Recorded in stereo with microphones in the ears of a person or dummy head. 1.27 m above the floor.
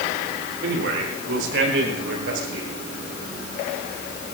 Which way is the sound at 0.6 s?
70° right (ahead or behind).